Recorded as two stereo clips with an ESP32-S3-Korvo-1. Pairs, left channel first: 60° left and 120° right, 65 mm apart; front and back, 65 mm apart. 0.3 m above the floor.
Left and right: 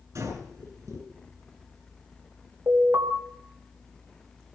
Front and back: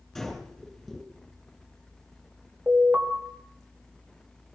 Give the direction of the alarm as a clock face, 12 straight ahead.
4 o'clock.